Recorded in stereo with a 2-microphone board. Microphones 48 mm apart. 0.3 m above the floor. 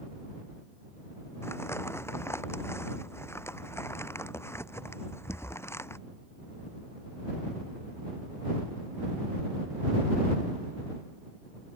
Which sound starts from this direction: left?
Crumpling, at 1.4 s.